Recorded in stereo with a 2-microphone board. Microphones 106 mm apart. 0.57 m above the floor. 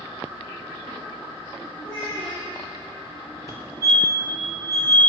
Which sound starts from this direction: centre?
A child speaking, at 1.8 s.